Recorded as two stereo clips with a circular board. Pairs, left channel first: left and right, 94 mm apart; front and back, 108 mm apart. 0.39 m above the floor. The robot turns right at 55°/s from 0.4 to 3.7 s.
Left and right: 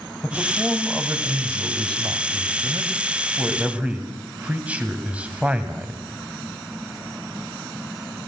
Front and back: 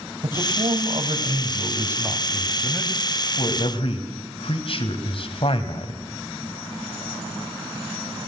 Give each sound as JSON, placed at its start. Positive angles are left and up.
{"t": 0.2, "sound": "a man speaking", "azimuth_deg": 165, "distance_m": 2.5}